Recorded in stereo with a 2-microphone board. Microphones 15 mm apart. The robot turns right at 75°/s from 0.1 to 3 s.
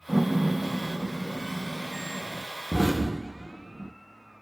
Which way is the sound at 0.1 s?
Centre (ahead or behind).